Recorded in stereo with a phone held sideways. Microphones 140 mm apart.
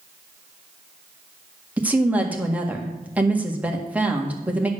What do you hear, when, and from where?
1.8 s a woman speaking: 10° right (ahead or behind), 1.7 m